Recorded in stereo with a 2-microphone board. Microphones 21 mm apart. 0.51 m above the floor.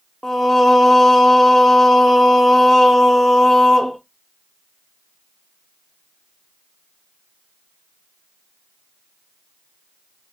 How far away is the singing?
About 0.8 m.